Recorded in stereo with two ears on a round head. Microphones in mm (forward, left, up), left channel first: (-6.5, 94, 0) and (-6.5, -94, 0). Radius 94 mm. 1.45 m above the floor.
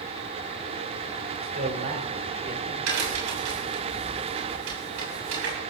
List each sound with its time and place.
1.4 s a man speaking: 45° right (ahead or behind), 5 m; by 2.8 s 40° right (ahead or behind), 6.5 m
2.9 s a crack: 65° right (ahead or behind), 7 m